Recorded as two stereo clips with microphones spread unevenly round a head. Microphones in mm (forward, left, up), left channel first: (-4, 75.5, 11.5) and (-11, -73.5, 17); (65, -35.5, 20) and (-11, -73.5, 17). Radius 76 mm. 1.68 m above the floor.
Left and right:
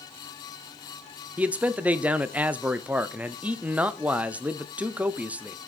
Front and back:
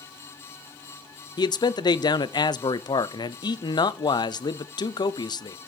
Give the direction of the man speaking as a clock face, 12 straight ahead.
12 o'clock.